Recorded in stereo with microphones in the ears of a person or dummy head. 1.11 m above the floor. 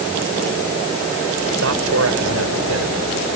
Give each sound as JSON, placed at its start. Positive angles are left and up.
{"t": 1.6, "sound": "a man speaking", "side_deg": -70}